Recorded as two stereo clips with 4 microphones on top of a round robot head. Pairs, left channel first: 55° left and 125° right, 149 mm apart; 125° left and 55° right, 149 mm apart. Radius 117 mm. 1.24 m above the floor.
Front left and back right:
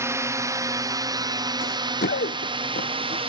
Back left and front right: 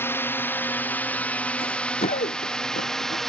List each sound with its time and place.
0.0 s a drone: 175° right; by 3.3 s 145° right
1.6 s running footsteps: 70° left; by 3.2 s 95° left